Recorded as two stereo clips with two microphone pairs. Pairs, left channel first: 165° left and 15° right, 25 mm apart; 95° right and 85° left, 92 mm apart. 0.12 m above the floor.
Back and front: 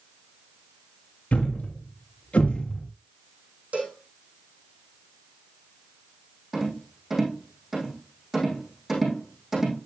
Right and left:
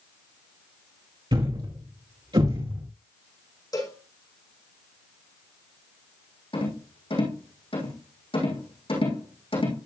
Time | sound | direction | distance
1.3 | a thud | 120° left | 3.5 m
3.7 | a cowbell | 50° right | 6 m
6.5 | a rattle | 95° right | 5 m